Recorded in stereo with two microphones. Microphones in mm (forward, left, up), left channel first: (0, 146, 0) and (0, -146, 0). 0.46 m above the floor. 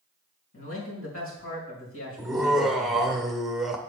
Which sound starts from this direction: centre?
Laughter, at 2.2 s.